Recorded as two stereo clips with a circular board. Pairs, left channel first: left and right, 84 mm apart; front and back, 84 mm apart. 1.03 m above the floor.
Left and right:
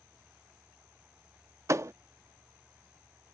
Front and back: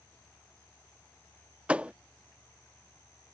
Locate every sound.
1.7 s a thud: 115° right